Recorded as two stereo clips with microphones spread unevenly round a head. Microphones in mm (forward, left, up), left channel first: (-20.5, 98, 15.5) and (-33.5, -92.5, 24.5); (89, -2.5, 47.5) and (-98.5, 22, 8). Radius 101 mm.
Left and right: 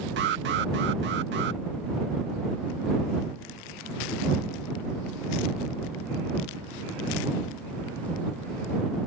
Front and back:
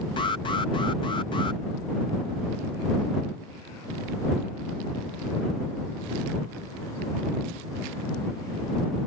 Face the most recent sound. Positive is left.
turn(degrees=-80)